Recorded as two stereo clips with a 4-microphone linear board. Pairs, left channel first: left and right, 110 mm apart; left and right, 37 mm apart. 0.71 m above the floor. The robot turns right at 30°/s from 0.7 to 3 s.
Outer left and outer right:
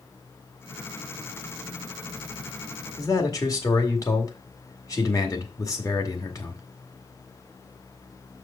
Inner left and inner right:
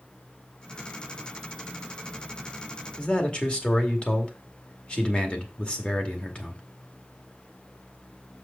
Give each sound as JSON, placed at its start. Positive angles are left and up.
{"t": 3.0, "sound": "a man speaking", "side_deg": 35, "distance_m": 1.9}